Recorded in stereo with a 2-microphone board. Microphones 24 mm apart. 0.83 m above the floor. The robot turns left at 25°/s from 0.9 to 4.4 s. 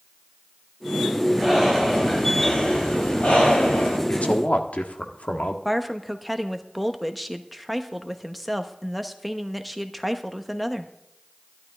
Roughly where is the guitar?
I don't hear a guitar.